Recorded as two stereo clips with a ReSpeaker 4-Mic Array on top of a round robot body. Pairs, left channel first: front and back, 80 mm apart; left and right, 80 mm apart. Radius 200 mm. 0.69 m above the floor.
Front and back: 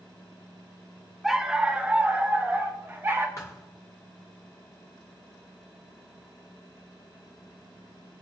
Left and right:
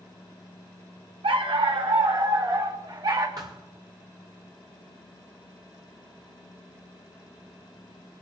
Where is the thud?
50° right, 0.5 m.